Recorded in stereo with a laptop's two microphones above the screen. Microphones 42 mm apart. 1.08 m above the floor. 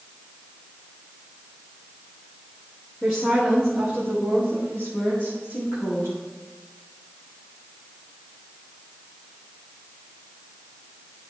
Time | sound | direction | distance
3.0 | a woman speaking | 10° left (ahead or behind) | 1.7 m